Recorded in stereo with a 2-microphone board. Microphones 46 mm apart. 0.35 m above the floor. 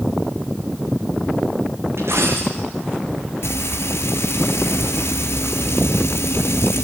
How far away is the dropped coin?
About 5.5 m.